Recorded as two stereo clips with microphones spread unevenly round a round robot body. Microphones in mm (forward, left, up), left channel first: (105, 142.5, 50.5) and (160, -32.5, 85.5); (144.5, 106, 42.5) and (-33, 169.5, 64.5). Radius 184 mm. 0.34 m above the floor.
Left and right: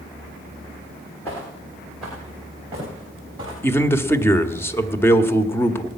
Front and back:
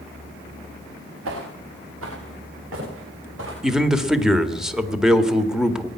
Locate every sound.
1.2 s footsteps: 170° right, 3 m; by 3.5 s 150° right, 5 m
3.6 s a man speaking: 65° left, 1.5 m